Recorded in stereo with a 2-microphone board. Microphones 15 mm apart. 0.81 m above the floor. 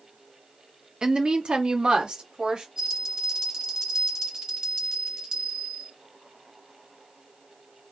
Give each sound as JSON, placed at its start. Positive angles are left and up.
{"t": 1.0, "sound": "a woman speaking", "side_deg": -45, "distance_m": 0.7}
{"t": 2.8, "sound": "a bell", "side_deg": -40, "distance_m": 1.3}